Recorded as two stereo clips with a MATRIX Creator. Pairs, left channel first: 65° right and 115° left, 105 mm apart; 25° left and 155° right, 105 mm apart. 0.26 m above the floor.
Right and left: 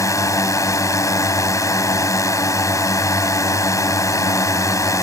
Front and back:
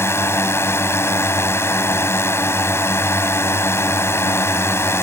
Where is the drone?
30° right.